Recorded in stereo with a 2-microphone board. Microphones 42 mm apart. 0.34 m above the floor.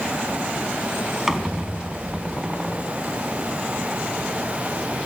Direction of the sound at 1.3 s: 10° right (ahead or behind).